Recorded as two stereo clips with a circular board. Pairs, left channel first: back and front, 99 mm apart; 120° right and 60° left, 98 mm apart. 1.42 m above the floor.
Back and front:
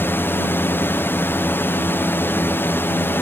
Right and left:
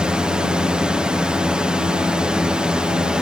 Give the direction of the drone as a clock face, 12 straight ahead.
8 o'clock.